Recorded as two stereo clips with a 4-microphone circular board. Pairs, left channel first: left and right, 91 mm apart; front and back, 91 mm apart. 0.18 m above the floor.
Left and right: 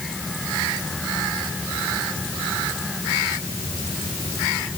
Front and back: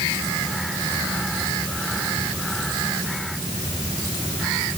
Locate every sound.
Only background noise.